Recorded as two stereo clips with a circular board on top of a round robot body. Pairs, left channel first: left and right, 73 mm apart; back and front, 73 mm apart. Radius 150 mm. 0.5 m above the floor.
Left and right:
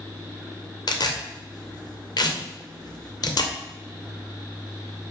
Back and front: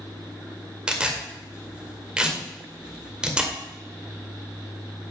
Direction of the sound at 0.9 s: 75° left.